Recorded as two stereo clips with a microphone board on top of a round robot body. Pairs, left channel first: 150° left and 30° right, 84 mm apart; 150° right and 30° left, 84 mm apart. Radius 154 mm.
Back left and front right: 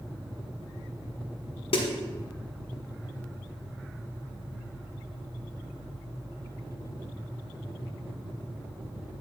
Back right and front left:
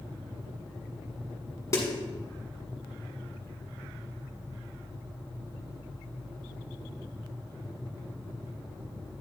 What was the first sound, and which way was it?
A snare drum, 150° left.